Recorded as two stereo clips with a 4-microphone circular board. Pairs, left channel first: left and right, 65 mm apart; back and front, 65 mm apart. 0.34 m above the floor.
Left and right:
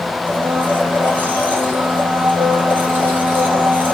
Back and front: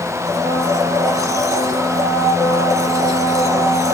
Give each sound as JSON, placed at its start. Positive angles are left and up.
{"t": 0.3, "sound": "a blender", "azimuth_deg": -25, "distance_m": 5.0}